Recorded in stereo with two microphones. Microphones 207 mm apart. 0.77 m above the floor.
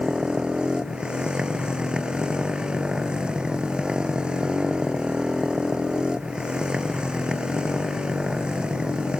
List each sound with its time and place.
0.0 s a motorcycle: 5° right (ahead or behind)